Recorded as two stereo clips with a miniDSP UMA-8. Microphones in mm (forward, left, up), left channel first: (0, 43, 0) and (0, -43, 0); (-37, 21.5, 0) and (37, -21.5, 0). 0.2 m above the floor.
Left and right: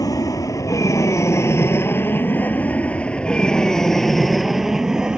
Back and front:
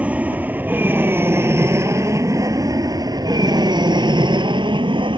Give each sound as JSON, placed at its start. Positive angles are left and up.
{"t": 0.0, "sound": "an aircraft", "azimuth_deg": 45}